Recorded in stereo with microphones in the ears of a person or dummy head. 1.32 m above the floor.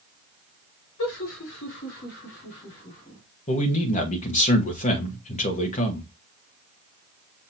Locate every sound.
1.0 s laughter: 70° left (ahead or behind), 2.5 m; by 3.2 s 35° left (ahead or behind), 3.5 m
3.5 s a man speaking: 40° left (ahead or behind), 1.3 m